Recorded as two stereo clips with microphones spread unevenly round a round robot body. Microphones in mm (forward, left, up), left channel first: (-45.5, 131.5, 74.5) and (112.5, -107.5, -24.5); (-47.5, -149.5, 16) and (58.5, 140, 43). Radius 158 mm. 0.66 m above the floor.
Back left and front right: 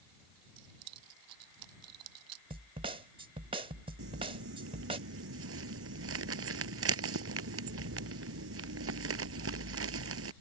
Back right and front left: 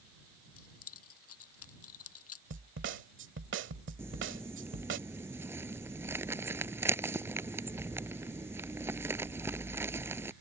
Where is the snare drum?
15° left.